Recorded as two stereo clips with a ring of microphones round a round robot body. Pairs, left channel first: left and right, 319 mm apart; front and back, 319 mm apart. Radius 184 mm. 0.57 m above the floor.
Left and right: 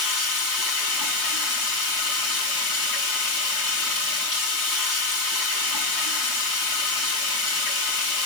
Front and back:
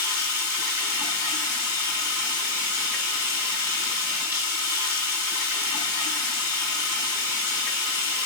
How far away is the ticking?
No ticking in this recording.